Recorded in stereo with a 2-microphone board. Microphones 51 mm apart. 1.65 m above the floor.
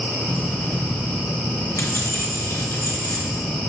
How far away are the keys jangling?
About 0.5 m.